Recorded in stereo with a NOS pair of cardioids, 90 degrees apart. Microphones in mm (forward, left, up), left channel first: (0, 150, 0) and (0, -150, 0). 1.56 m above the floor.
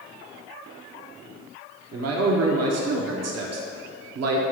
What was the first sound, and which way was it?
A man speaking, 60° right.